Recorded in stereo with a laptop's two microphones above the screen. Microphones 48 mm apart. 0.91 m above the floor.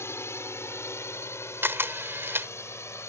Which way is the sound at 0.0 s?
65° left (ahead or behind).